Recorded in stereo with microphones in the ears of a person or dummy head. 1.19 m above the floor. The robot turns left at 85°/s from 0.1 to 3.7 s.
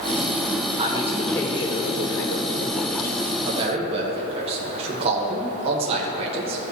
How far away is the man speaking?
About 1.0 m.